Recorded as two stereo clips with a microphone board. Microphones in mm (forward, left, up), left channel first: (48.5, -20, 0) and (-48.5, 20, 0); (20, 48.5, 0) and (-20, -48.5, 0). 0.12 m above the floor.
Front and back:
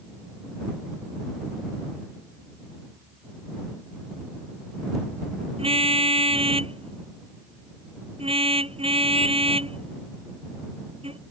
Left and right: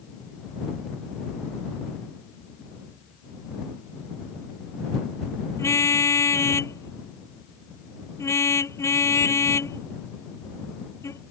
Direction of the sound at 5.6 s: 130° left.